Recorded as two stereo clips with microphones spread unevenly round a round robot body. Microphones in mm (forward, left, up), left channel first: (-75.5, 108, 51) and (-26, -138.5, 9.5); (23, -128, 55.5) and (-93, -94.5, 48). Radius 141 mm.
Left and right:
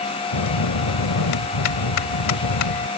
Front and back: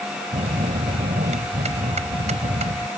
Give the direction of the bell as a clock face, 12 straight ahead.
8 o'clock.